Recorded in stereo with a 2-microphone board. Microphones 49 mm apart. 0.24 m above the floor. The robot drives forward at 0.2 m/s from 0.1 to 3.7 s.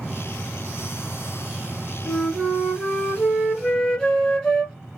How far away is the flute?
About 1.7 m.